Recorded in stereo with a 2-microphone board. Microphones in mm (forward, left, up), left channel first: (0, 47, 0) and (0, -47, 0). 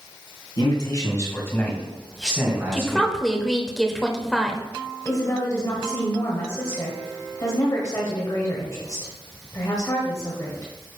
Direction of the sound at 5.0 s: 35° left (ahead or behind).